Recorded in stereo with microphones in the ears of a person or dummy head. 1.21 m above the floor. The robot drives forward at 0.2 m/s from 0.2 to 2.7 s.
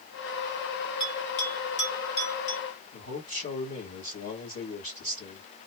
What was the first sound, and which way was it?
A bell, 50° left (ahead or behind).